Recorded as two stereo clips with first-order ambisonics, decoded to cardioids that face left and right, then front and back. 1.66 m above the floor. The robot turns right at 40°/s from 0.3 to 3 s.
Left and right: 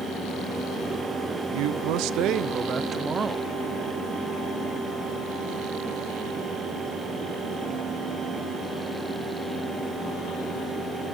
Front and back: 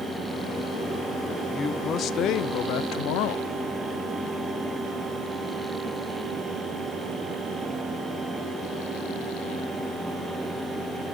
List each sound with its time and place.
1.5 s a man speaking: 75° right, 0.5 m; by 3.5 s 20° right, 0.5 m